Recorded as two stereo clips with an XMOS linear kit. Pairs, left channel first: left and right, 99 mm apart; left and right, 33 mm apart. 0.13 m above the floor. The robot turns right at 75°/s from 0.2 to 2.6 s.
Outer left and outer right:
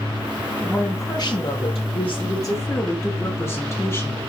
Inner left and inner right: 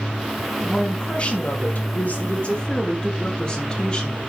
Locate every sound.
0.6 s a woman speaking: 5° left, 4 m; by 4.2 s 150° left, 4 m